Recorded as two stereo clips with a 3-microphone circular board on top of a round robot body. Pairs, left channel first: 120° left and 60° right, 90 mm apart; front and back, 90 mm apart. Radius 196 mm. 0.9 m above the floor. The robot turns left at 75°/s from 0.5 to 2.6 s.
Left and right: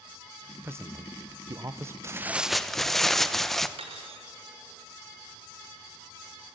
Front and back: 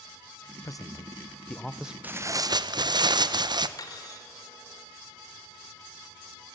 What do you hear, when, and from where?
0.6 s a man speaking: 10° right, 1.0 m; by 1.9 s 105° right, 1.0 m
2.0 s tearing paper: 110° right, 0.9 m; by 3.7 s 155° right, 0.9 m
3.8 s cutlery clinking: 50° right, 1.8 m